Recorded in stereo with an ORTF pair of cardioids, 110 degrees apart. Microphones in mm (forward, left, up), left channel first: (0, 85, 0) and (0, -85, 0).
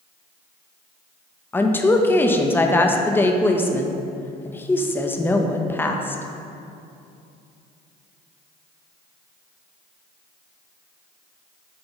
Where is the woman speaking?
10° left, 0.6 m.